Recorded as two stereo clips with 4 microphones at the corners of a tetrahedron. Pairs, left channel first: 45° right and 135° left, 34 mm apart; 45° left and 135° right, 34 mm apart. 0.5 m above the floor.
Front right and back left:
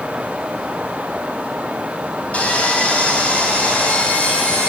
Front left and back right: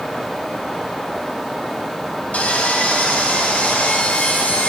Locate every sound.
2.3 s sawing: 5° left, 4 m